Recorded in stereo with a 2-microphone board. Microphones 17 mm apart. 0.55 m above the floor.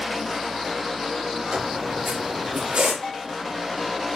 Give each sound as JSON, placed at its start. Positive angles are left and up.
{"t": 1.5, "sound": "a squeak", "side_deg": -90, "distance_m": 5.0}
{"t": 3.0, "sound": "a bell", "side_deg": 30, "distance_m": 2.5}